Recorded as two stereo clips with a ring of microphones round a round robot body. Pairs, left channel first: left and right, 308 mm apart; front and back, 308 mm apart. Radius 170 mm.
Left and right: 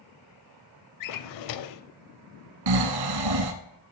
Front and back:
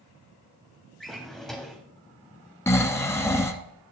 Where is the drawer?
90° left, 0.6 m.